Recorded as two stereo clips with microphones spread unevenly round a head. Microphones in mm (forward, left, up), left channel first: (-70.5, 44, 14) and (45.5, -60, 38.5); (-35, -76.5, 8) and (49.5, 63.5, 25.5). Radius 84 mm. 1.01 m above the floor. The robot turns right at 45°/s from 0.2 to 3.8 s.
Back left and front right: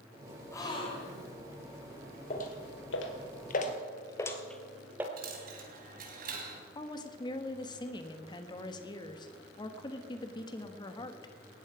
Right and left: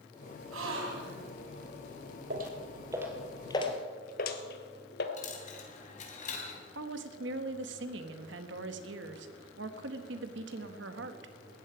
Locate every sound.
0.5 s a gasp: 65° left, 3 m; by 1.3 s 100° left, 3 m
2.3 s footsteps: 85° left, 2 m; by 5.1 s 110° right, 1.6 m
5.2 s a dropped coin: 75° right, 3 m
6.8 s a woman speaking: 75° left, 1.4 m